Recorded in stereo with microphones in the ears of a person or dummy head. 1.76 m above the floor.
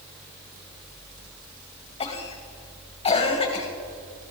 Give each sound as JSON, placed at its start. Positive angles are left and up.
{"t": 2.0, "sound": "a cough", "side_deg": 35, "distance_m": 2.0}